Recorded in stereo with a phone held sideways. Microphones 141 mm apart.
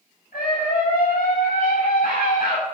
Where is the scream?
80° left, 7 m.